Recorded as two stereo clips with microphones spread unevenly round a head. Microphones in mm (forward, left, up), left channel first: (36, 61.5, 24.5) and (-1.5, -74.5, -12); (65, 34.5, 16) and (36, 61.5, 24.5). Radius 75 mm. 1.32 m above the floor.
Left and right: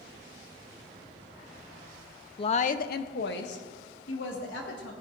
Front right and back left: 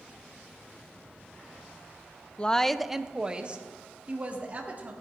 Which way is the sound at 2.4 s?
15° left.